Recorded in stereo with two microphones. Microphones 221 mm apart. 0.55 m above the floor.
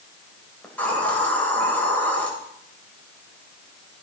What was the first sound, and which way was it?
A hiss, 5° left (ahead or behind).